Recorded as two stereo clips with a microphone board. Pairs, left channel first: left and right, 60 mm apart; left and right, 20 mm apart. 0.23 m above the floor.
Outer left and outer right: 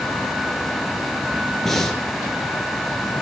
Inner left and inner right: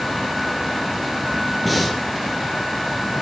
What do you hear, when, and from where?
1.6 s breathing: 5° left (ahead or behind), 4 m